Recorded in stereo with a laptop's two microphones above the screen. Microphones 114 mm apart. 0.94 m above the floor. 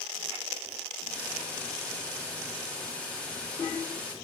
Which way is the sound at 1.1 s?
10° left (ahead or behind).